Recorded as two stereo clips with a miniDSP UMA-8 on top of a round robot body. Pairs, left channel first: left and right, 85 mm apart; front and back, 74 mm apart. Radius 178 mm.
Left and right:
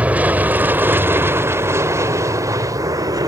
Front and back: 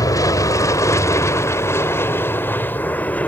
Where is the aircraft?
20° right; by 3.3 s 65° right.